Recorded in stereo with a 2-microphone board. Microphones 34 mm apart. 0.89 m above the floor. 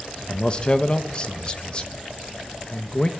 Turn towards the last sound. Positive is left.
turn(degrees=30)  # may be behind; listen again after turning